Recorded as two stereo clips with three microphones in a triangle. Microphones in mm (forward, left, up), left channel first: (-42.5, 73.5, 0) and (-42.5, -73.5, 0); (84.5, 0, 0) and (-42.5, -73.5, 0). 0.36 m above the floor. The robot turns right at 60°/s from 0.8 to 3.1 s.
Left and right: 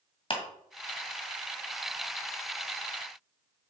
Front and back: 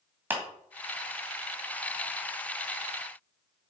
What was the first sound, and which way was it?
A clap, 135° left.